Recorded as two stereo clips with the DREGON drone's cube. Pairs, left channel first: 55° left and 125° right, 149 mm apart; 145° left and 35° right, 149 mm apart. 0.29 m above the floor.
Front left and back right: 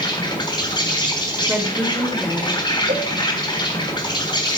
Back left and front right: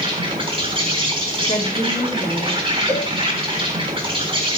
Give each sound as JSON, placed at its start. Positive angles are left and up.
{"t": 0.0, "sound": "an insect", "azimuth_deg": 5, "distance_m": 3.5}
{"t": 1.5, "sound": "a woman speaking", "azimuth_deg": 160, "distance_m": 2.0}
{"t": 2.9, "sound": "a cowbell", "azimuth_deg": -115, "distance_m": 8.5}